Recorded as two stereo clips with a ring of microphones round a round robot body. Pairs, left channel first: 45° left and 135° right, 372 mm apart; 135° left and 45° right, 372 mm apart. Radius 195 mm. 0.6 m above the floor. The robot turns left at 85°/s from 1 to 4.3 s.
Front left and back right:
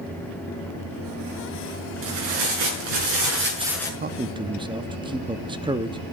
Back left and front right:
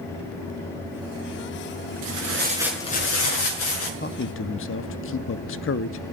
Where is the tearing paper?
75° right, 5.5 m; by 3.9 s 125° left, 5.5 m.